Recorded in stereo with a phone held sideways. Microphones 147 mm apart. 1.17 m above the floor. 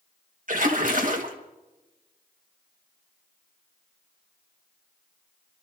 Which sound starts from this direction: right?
A splash, at 0.5 s.